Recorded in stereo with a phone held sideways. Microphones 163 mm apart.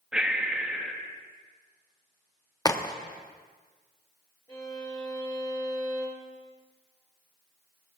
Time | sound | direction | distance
0.1 | breathing | 5° right (ahead or behind) | 1.2 m
2.6 | a crack | 25° left (ahead or behind) | 0.8 m
4.5 | a violin | 20° left (ahead or behind) | 5 m